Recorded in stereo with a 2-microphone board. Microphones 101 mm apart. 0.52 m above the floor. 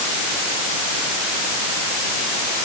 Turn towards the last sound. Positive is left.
No sound to turn to.